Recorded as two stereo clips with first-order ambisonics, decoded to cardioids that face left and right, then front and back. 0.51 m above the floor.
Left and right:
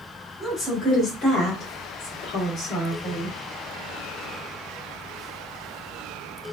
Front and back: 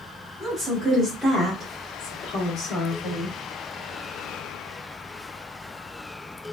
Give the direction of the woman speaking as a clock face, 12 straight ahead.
7 o'clock.